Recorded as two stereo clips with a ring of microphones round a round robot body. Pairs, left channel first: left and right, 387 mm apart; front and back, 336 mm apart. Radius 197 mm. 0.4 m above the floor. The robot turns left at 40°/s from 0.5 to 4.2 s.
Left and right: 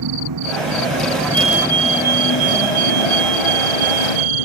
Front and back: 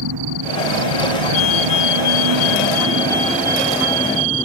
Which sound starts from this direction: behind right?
An engine running, at 0.0 s.